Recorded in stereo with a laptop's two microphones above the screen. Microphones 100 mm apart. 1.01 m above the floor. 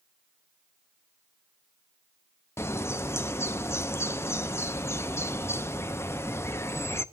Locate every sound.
2.6 s a bird: 25° left (ahead or behind), 0.5 m